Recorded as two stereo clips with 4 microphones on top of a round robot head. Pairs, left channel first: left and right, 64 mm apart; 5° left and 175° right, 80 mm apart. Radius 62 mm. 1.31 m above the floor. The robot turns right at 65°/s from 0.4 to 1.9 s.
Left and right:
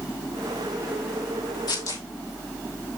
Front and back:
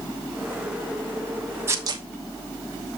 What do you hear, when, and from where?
1.7 s tearing paper: 125° left, 1.2 m; by 2.0 s 140° left, 1.2 m